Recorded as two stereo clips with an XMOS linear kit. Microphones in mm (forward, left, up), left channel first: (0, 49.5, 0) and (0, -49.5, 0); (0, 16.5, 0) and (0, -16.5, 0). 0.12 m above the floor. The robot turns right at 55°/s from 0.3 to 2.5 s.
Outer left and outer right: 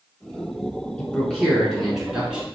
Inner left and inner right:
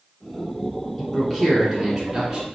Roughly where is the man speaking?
Centre.